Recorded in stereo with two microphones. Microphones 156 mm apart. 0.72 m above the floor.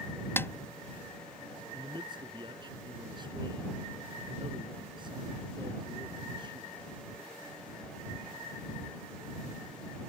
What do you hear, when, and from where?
0.4 s a snare drum: 15° left (ahead or behind)
1.7 s a man speaking: 30° right (ahead or behind)